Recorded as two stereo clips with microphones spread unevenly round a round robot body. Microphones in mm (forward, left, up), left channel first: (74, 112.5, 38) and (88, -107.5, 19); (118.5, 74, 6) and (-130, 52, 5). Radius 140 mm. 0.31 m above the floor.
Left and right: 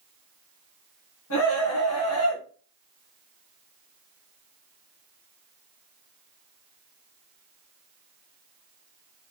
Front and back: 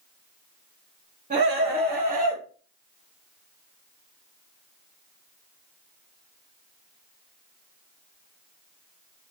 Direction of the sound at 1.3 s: 125° left.